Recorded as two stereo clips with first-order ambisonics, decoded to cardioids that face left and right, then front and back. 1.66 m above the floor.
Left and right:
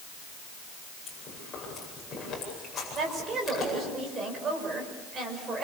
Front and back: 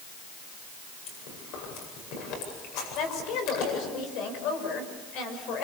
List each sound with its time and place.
1.1 s chewing: 20° left, 8.5 m
3.0 s a woman speaking: 30° right, 6 m